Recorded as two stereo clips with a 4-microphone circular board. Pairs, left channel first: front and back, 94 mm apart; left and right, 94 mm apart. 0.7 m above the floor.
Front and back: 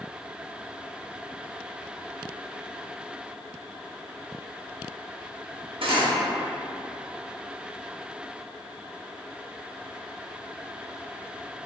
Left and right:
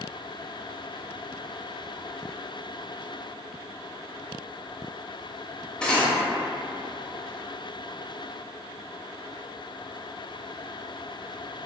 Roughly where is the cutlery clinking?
Behind.